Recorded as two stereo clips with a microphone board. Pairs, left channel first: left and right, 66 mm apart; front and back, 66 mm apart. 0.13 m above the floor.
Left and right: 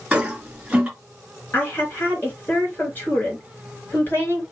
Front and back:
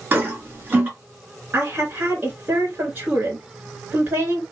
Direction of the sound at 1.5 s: 135° left.